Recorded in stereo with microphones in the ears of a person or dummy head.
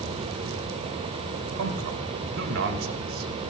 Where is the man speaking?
70° right (ahead or behind), 2.5 m.